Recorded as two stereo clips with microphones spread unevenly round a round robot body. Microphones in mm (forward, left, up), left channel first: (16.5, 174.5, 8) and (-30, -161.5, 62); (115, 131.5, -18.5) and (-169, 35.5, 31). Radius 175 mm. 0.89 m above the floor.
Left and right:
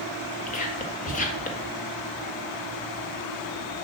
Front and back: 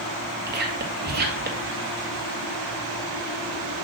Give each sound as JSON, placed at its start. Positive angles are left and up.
{"t": 0.5, "sound": "whispering", "azimuth_deg": 140, "distance_m": 1.5}